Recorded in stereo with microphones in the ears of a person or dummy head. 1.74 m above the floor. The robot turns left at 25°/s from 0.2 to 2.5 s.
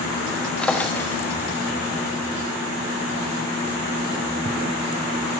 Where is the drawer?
5° left (ahead or behind), 1.2 m; by 1.2 s 15° left (ahead or behind), 1.2 m.